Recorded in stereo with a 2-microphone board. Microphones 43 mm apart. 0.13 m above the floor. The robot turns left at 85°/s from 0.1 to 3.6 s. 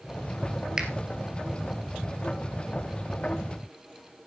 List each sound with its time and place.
0.8 s a finger snap: 15° right (ahead or behind), 2.5 m; by 0.9 s 25° right (ahead or behind), 2.5 m